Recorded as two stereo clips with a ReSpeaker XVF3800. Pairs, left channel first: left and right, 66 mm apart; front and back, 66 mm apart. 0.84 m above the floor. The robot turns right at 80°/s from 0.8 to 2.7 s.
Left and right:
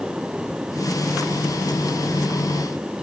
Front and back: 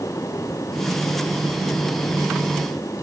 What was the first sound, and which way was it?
Only background noise.